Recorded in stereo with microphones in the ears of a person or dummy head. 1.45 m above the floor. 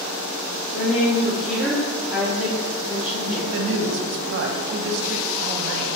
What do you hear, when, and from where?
0.7 s a woman speaking: 5° right (ahead or behind), 0.9 m
3.5 s a woman speaking: 65° right (ahead or behind), 0.5 m